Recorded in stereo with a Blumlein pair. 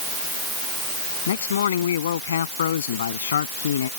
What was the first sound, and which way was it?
A man speaking, 65° left.